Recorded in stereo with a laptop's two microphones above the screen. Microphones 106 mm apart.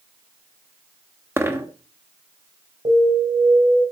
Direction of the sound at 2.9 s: 65° right (ahead or behind).